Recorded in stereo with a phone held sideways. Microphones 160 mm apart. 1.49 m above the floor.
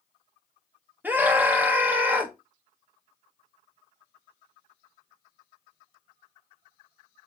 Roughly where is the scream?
Centre.